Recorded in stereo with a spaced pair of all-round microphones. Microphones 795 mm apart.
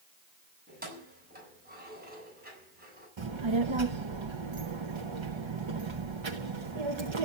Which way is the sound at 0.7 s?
10° right (ahead or behind).